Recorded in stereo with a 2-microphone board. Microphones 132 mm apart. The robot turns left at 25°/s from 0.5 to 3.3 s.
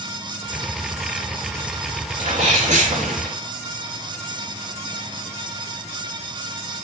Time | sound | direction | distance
2.2 | a sneeze | 50° right (ahead or behind) | 3.5 m